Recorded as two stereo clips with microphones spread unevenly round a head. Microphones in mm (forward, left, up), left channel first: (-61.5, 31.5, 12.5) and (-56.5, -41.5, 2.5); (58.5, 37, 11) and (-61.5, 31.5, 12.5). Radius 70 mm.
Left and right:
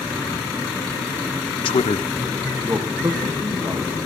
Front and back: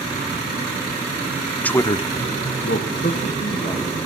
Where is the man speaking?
80° left, 0.7 m; by 4.0 s 40° right, 2.0 m.